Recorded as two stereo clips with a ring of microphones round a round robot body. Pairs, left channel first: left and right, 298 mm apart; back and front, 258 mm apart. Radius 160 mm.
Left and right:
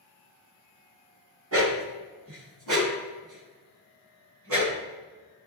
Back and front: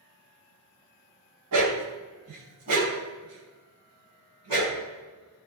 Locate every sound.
1.5 s a dog barking: 45° right, 1.6 m